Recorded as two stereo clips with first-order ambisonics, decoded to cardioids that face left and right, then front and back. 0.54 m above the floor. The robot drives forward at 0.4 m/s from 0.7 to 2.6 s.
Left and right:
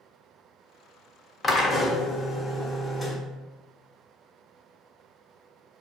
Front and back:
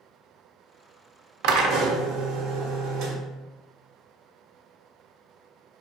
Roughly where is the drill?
Behind.